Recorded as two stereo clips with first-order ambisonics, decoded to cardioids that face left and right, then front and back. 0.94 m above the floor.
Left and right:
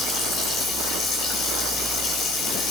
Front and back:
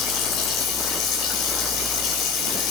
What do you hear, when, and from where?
0.0 s running water: 40° left, 5.5 m